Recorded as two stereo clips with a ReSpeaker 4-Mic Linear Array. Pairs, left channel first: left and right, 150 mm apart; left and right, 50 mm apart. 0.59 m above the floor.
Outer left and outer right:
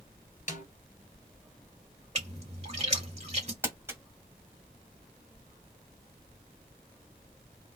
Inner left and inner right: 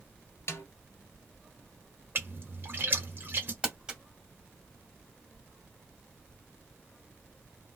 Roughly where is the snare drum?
Left.